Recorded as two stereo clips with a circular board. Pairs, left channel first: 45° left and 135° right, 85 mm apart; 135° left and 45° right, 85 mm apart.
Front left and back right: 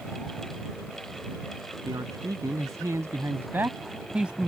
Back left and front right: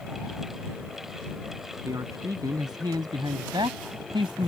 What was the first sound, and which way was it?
A man speaking, 95° right.